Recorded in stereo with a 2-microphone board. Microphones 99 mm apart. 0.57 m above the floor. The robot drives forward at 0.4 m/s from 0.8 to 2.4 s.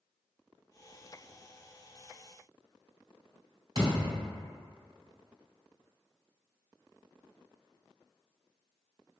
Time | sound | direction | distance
3.8 | a thud | 60° right (ahead or behind) | 1.9 m